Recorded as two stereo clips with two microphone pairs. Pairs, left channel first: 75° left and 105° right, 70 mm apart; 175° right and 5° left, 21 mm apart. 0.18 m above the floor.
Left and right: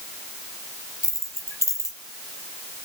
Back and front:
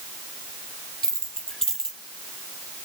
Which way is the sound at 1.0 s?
115° left.